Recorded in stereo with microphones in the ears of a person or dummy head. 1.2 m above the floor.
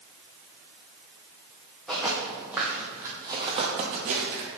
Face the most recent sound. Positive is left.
turn(degrees=-50)  # may be behind; listen again after turning